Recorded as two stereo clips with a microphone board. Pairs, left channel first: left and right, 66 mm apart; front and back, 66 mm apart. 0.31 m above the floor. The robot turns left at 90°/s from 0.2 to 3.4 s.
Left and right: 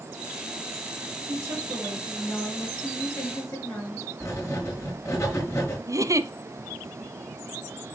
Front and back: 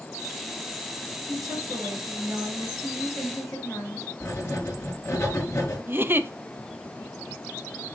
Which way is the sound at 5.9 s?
120° right.